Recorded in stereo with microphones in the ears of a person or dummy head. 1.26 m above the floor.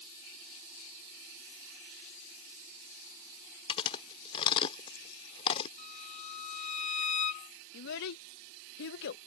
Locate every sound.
3.7 s chewing: 30° left (ahead or behind)
5.8 s a violin: 40° left (ahead or behind)
7.7 s a child speaking: 60° left (ahead or behind)